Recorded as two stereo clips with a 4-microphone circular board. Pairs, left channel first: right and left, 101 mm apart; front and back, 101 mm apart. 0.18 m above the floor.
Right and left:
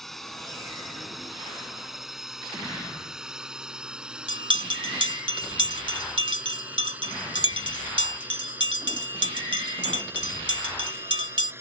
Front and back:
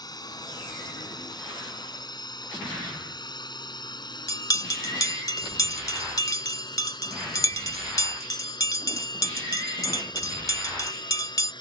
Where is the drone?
5° right; by 11.6 s 30° left.